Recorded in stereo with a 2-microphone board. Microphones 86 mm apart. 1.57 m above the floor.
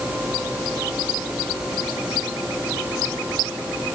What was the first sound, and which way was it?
Only background noise.